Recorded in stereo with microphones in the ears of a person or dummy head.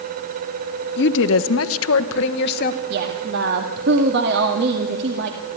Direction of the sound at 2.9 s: 60° right (ahead or behind).